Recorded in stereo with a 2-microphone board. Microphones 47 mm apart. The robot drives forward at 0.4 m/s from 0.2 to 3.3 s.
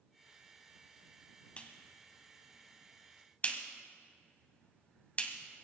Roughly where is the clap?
Left.